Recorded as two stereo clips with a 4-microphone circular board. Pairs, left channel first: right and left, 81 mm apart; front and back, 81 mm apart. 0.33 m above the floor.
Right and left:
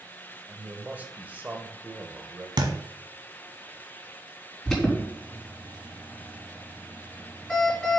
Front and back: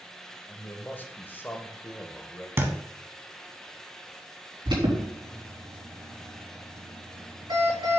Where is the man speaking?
40° left, 1.2 m.